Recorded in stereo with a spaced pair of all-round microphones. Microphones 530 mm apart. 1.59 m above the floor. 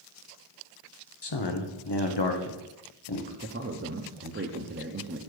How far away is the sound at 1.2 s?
About 0.8 m.